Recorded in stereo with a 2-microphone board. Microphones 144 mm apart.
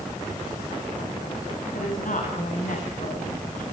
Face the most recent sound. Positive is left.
turn(degrees=65)  # may be behind; listen again after turning